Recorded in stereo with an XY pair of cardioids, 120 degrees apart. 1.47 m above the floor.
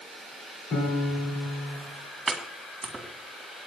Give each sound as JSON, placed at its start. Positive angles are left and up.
{"t": 0.7, "sound": "a piano", "azimuth_deg": 50, "distance_m": 5.5}
{"t": 2.3, "sound": "chopping", "azimuth_deg": -25, "distance_m": 2.5}